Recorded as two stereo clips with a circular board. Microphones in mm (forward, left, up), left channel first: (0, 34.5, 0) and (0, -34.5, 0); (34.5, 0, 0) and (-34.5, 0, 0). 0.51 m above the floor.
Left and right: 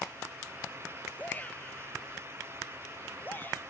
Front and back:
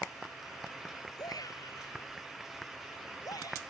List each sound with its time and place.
1.2 s a shout: 25° left; by 3.6 s 30° left